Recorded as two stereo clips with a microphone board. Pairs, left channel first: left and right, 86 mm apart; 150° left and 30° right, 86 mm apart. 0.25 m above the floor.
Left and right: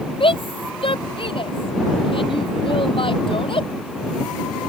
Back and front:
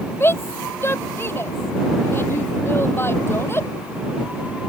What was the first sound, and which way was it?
A shout, 90° left.